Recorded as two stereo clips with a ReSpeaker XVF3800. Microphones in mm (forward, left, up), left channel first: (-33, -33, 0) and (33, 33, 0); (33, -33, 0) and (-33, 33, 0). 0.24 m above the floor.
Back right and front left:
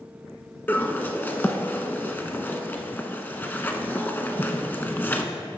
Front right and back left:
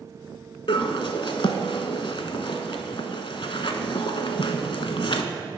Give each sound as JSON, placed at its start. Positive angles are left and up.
{"t": 0.7, "sound": "a bird", "azimuth_deg": -65, "distance_m": 0.6}